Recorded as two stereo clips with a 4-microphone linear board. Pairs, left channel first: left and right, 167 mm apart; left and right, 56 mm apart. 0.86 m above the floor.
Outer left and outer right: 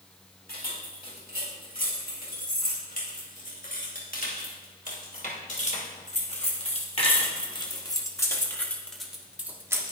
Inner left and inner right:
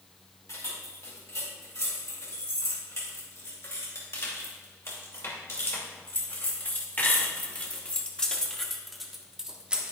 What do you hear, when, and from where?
0.5 s keys jangling: 65° left (ahead or behind), 5 m; by 9.9 s 20° right (ahead or behind), 1.4 m